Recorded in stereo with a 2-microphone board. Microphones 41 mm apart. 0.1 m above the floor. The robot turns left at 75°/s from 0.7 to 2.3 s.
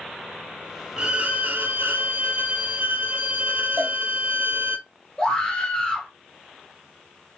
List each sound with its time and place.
1.0 s a violin: 20° right, 0.6 m; by 4.8 s 120° right, 0.6 m
3.8 s a cowbell: 65° right (ahead or behind), 1.1 m
5.2 s a scream: 20° left (ahead or behind), 1.4 m